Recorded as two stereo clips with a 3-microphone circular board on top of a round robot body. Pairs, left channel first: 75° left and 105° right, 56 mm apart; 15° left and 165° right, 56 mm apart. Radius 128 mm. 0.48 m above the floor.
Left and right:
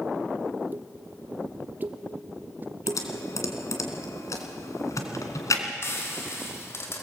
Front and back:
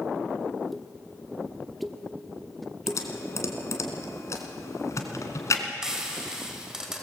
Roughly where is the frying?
Behind left.